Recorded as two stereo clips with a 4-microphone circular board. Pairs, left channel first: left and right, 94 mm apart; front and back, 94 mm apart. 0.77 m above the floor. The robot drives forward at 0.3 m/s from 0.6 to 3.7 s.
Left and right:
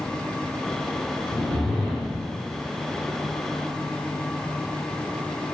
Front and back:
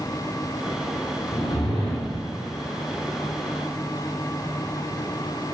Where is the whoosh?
10° left, 1.2 m.